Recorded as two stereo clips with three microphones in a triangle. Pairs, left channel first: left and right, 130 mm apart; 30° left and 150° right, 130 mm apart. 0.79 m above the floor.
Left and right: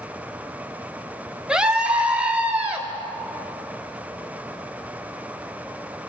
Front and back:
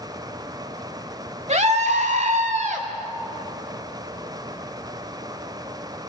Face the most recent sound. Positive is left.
turn(degrees=-170)